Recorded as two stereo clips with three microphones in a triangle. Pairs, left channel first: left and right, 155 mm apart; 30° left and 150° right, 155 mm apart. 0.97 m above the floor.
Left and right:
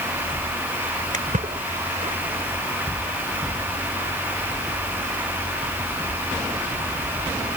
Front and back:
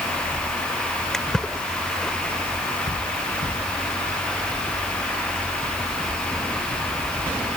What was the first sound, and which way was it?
A splash, 60° right.